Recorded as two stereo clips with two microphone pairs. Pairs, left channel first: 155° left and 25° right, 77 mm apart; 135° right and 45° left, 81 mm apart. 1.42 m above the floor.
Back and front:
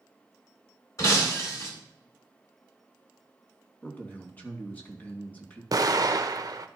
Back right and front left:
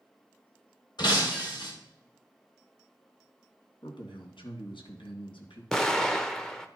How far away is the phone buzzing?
No phone buzzing in this recording.